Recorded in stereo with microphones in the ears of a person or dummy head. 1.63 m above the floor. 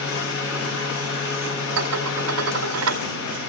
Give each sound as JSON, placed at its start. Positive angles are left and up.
{"t": 0.0, "sound": "a fan", "side_deg": 65, "distance_m": 3.5}
{"t": 1.8, "sound": "dishes clattering", "side_deg": -65, "distance_m": 2.0}